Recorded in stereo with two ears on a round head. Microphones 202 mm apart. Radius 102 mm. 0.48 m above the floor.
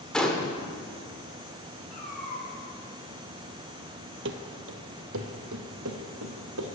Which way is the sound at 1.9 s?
30° left (ahead or behind).